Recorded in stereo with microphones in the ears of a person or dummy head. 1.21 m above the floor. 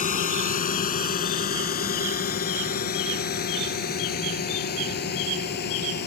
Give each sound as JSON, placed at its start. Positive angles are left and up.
{"t": 0.0, "sound": "a drone", "side_deg": 40}